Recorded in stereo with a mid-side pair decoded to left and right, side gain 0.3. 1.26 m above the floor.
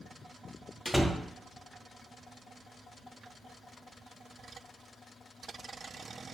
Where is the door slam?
Straight ahead, 0.5 m.